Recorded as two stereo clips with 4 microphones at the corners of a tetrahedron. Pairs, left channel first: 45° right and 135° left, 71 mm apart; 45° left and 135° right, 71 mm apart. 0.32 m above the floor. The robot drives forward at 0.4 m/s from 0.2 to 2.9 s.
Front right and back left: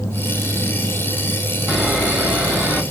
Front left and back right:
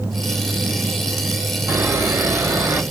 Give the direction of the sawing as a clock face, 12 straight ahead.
5 o'clock.